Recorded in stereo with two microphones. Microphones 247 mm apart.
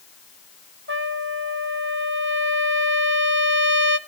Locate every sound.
0.9 s a trumpet: 50° right (ahead or behind), 0.7 m